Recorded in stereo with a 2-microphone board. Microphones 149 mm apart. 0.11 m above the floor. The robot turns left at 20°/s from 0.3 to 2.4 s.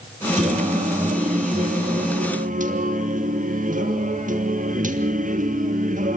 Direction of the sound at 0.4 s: 65° right.